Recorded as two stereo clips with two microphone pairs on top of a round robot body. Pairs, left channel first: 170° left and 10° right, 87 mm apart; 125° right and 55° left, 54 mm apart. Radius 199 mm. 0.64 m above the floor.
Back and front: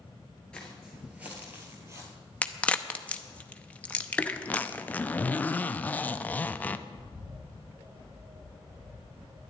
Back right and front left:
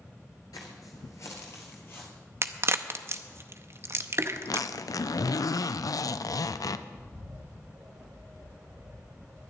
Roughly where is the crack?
Left.